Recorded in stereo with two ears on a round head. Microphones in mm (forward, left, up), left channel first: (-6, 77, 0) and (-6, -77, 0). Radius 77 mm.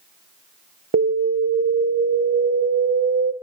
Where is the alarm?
65° right (ahead or behind), 0.8 m.